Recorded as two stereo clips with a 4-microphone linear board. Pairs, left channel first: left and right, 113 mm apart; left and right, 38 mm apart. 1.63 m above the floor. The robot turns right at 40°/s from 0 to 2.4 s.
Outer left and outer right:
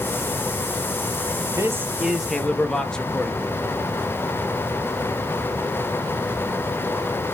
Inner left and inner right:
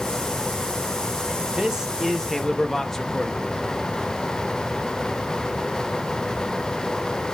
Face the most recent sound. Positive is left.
turn(degrees=5)